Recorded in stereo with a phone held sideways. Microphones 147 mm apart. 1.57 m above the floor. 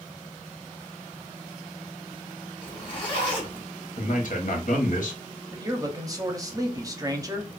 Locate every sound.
2.6 s a zipper: 35° left (ahead or behind), 1.4 m
4.0 s a man speaking: 65° left (ahead or behind), 1.0 m
5.5 s a man speaking: 25° right (ahead or behind), 0.7 m